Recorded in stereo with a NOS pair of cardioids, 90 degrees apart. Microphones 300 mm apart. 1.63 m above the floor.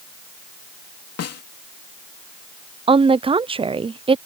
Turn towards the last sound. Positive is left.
turn(degrees=-20)